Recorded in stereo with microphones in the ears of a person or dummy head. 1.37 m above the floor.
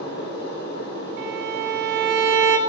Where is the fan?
65° left (ahead or behind), 5.5 m.